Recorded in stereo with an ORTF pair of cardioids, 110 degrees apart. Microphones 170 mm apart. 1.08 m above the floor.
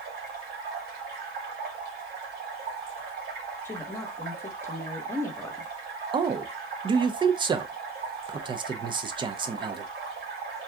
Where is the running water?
70° right, 1.7 m.